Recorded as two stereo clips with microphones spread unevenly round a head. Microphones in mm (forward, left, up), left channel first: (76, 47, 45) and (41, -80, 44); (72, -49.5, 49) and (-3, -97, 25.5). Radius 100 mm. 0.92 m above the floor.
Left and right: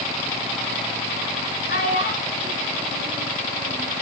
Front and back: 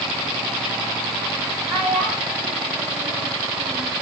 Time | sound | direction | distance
1.7 | a child speaking | 120° left | 4.5 m